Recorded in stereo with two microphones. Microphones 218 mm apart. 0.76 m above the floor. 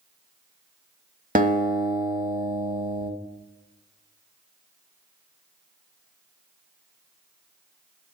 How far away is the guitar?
About 0.7 m.